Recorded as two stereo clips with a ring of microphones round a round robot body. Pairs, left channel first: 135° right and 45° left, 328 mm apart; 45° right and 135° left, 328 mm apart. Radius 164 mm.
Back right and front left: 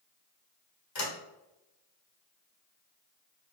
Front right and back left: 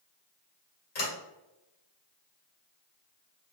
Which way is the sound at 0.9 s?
105° right.